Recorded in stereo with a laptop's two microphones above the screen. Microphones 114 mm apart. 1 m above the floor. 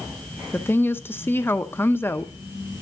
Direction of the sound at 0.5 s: 20° left (ahead or behind).